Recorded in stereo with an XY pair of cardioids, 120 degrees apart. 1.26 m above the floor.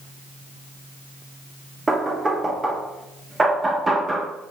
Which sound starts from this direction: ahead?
Knocking, at 1.9 s.